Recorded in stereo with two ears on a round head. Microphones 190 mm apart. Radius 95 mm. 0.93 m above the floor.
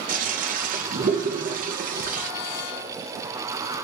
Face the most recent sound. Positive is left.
turn(degrees=-40)  # may be behind; listen again after turning